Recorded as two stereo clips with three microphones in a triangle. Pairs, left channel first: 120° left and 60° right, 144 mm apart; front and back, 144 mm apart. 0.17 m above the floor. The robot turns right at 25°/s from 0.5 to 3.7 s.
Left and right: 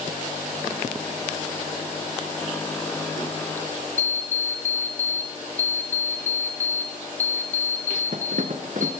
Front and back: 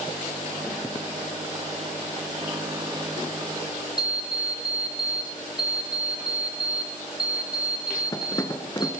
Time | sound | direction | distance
4.0 | an alarm clock | 60° right | 1.3 m